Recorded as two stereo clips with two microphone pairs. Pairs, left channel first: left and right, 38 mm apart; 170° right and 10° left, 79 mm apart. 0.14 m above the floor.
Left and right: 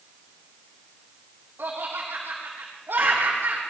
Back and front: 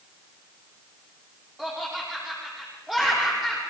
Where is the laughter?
80° right, 6.5 m.